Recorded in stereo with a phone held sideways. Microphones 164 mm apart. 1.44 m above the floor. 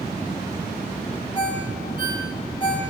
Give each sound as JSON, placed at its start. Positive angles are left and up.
{"t": 1.4, "sound": "a ringtone", "side_deg": 30, "distance_m": 4.5}